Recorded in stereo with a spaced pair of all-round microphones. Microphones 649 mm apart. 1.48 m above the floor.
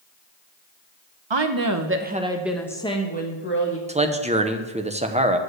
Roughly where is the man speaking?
Centre.